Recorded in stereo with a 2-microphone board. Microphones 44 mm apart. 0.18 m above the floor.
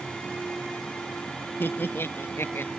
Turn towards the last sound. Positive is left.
turn(degrees=65)  # may be behind; listen again after turning